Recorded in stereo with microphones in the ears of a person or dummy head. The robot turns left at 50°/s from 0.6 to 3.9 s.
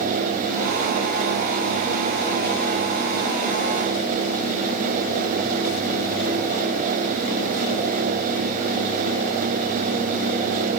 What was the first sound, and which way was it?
Only background noise.